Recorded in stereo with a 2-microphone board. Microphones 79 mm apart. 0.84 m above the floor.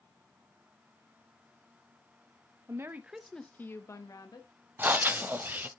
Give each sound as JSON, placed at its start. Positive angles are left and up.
{"t": 2.7, "sound": "a woman speaking", "side_deg": -40, "distance_m": 0.8}
{"t": 4.8, "sound": "breathing", "side_deg": -25, "distance_m": 0.6}